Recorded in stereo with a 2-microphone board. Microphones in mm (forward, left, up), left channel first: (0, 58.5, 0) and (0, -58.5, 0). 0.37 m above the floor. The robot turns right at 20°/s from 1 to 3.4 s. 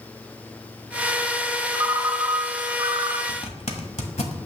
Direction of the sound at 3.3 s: 70° left (ahead or behind).